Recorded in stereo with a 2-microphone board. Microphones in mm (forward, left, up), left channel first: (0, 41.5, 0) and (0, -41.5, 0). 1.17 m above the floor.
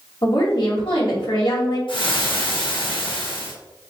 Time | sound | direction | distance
0.2 | a woman speaking | 75° left (ahead or behind) | 2 m
1.9 | frying | 85° left | 1.3 m